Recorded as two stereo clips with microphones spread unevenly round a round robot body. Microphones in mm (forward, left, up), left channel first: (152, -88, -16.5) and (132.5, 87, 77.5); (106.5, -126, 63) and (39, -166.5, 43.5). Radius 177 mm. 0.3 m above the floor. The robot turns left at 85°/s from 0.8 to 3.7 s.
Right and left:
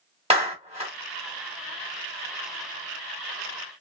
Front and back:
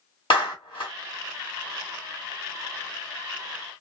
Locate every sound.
0.3 s a clap: 20° left, 1.4 m; by 0.9 s 10° left, 1.4 m